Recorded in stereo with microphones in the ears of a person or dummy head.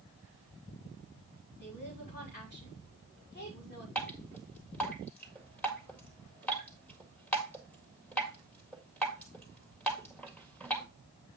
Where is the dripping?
Centre (ahead or behind), 1.8 m.